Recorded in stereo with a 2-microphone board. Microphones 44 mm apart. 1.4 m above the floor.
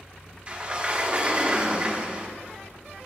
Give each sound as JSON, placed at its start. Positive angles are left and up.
{"t": 0.5, "sound": "a sliding door", "side_deg": -30, "distance_m": 1.2}